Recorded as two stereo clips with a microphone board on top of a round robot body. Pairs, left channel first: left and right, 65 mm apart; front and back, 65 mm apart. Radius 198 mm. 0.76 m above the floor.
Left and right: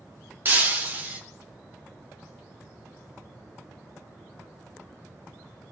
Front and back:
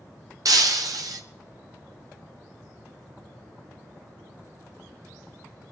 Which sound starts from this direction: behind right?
Breaking glass, at 0.5 s.